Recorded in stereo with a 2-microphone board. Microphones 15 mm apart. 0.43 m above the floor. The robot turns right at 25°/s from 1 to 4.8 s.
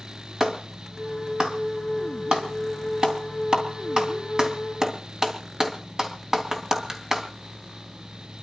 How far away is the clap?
About 3 m.